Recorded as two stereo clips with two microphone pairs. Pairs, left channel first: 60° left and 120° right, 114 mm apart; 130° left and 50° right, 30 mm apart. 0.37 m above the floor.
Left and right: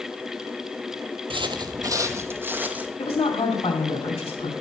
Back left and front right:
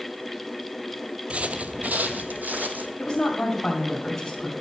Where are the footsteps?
90° right, 0.6 m; by 2.9 s 40° right, 1.1 m.